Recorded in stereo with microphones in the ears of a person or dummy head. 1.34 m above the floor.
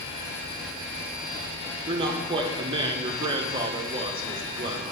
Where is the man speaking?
25° right (ahead or behind), 1.4 m.